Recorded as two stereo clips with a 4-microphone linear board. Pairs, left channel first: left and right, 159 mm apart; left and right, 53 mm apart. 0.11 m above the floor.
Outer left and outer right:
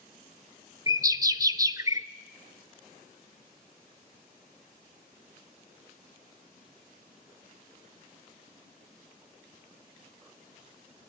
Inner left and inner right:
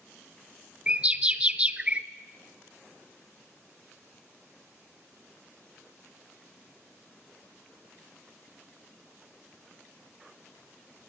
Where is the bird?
20° right (ahead or behind), 0.7 m.